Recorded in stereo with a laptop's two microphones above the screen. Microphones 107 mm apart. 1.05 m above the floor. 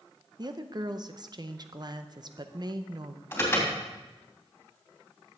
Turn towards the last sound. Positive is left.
turn(degrees=20)  # may be behind; listen again after turning